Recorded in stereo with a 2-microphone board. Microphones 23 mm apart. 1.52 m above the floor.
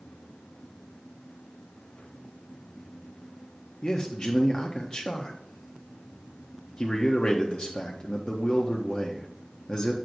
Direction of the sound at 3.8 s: 45° left (ahead or behind).